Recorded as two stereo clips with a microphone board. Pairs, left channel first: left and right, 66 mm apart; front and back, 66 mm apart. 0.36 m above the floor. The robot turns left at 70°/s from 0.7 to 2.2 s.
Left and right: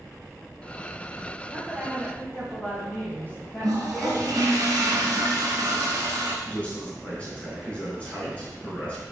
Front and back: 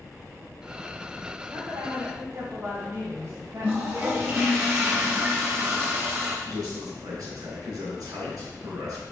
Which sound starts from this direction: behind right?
A toilet flushing, at 3.6 s.